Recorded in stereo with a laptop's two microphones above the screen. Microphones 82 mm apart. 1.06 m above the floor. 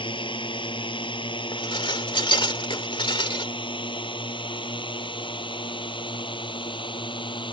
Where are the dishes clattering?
85° left.